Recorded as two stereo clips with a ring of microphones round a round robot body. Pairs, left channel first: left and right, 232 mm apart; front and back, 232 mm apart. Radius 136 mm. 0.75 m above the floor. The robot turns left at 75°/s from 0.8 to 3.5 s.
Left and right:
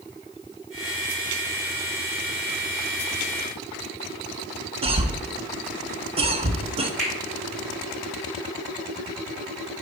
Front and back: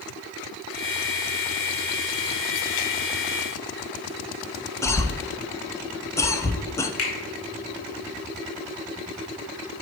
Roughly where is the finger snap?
Ahead.